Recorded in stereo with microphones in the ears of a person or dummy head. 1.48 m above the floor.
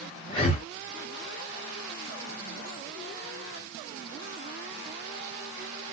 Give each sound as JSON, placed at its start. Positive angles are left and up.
{"t": 0.3, "sound": "breathing", "side_deg": 35, "distance_m": 0.9}